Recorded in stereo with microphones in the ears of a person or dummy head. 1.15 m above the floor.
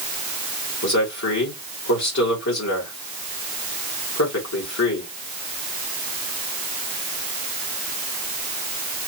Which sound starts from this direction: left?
A man speaking, at 0.8 s.